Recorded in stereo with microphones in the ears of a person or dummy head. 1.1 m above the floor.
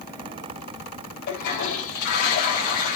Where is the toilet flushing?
55° left (ahead or behind), 4 m.